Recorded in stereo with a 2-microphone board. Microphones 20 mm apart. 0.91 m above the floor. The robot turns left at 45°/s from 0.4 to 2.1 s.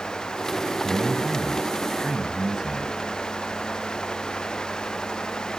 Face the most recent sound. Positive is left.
turn(degrees=-145)